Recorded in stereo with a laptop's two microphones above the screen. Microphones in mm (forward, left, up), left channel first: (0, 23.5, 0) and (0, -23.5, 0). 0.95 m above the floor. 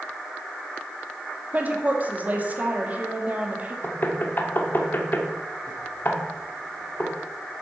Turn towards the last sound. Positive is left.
turn(degrees=45)  # may be behind; listen again after turning